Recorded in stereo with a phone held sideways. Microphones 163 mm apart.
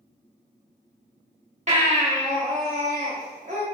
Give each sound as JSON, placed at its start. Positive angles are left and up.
{"t": 1.7, "sound": "a baby crying", "side_deg": -40, "distance_m": 0.9}